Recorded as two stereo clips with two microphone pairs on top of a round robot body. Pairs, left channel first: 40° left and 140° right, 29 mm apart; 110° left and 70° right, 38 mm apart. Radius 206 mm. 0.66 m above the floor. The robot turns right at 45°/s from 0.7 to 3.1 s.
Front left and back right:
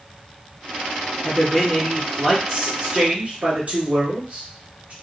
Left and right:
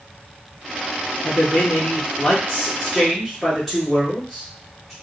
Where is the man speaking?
115° left, 1.6 m; by 4.9 s 160° right, 1.6 m.